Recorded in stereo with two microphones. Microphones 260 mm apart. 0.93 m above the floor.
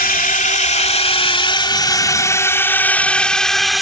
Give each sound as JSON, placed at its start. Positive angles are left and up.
{"t": 0.0, "sound": "a drone", "side_deg": 35}